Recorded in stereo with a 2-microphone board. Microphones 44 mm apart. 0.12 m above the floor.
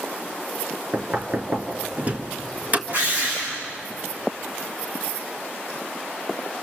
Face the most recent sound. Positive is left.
turn(degrees=-40)  # may be behind; listen again after turning